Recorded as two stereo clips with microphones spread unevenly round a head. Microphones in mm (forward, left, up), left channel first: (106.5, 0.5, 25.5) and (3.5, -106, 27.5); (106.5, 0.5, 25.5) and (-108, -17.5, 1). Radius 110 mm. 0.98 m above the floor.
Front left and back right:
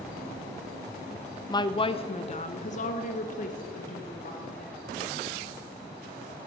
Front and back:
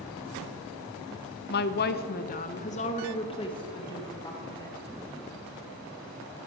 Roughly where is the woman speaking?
Ahead.